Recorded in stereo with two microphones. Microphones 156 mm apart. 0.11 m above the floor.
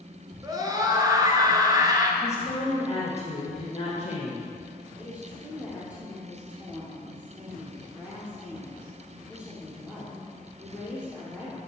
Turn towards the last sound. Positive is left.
turn(degrees=-5)  # may be behind; listen again after turning